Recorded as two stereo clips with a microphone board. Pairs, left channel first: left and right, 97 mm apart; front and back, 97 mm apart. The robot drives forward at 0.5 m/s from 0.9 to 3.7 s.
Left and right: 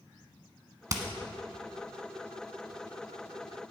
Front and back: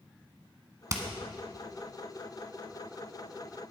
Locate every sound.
0.9 s hammering: 135° right, 1.2 m